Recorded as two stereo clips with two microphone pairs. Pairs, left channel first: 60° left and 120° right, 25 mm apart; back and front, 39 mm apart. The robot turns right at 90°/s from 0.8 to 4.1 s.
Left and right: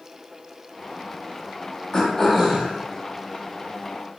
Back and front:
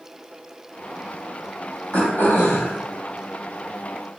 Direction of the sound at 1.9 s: 125° left.